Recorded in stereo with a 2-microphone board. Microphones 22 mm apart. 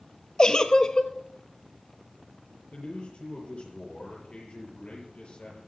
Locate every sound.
0.4 s a giggle: 35° left (ahead or behind), 0.8 m
2.7 s a man speaking: 60° left (ahead or behind), 6.5 m